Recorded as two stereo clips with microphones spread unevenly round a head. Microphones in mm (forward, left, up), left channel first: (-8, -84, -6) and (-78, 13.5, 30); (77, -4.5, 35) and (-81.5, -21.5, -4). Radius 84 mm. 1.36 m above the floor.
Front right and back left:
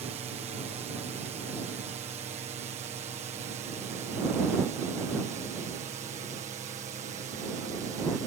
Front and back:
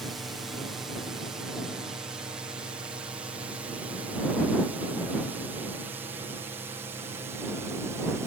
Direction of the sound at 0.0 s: 120° left.